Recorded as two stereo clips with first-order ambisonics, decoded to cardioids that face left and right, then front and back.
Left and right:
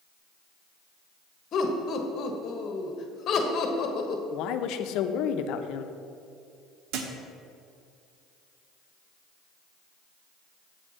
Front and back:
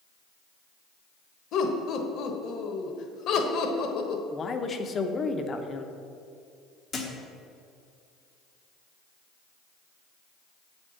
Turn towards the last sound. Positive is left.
turn(degrees=-70)